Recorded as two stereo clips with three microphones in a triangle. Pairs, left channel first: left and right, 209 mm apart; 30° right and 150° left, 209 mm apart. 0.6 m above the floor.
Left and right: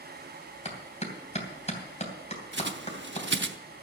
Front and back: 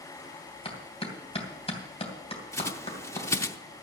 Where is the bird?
105° right, 0.7 m.